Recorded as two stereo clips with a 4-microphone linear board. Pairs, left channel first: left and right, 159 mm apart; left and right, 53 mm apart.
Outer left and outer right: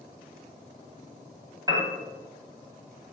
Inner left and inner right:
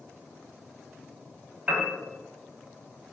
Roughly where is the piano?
Right.